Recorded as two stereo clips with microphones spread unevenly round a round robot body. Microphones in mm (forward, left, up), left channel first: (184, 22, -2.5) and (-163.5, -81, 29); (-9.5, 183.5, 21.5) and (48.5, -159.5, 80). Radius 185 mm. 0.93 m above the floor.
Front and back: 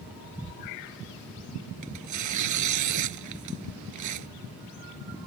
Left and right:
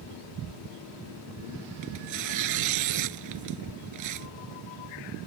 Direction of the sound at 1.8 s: 120° right.